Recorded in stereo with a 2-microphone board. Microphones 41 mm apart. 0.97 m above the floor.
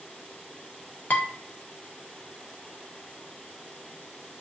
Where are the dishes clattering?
35° left (ahead or behind), 0.7 m.